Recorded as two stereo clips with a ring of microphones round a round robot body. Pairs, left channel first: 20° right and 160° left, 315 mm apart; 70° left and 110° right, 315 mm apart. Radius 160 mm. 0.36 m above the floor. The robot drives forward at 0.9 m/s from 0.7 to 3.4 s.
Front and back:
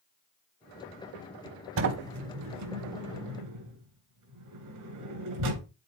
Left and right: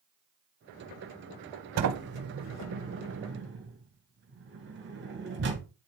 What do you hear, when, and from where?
1.8 s a sliding door: 155° right, 1.0 m; by 5.7 s 170° right, 2.5 m